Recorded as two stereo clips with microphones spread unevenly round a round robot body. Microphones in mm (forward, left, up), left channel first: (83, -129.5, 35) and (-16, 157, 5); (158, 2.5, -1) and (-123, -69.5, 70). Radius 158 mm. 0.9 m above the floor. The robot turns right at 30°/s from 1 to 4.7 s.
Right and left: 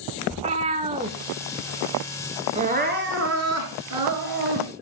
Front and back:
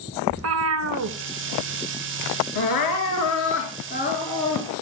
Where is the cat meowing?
Straight behind, 1.0 m; by 1.2 s 175° right, 1.0 m.